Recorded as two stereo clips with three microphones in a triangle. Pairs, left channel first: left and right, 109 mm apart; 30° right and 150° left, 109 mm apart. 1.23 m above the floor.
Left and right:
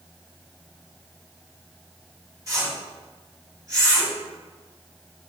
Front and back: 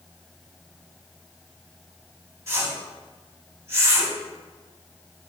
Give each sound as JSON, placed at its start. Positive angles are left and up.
{"t": 2.5, "sound": "a whoosh", "azimuth_deg": -145, "distance_m": 3.5}